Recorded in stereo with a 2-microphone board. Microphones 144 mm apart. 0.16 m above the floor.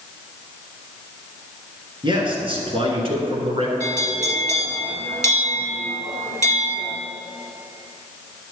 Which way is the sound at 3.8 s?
60° right (ahead or behind).